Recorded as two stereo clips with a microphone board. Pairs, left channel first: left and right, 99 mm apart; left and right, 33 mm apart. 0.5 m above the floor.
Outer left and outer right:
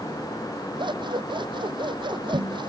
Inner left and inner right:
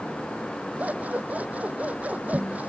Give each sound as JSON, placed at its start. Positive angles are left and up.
{"t": 0.8, "sound": "scissors", "side_deg": -50}